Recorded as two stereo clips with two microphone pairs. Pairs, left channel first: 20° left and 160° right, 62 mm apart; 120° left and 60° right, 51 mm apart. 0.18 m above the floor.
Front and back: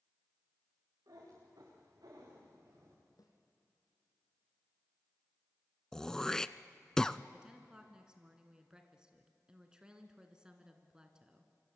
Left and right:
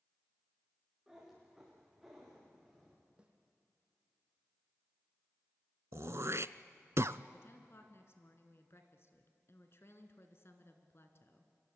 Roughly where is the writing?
I don't hear writing.